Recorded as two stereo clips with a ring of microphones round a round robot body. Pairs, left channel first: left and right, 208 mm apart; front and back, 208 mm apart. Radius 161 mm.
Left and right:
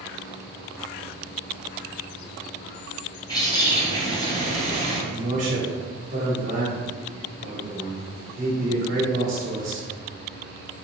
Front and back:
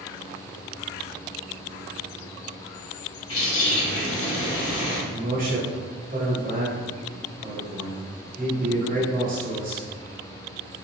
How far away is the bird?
About 1.8 m.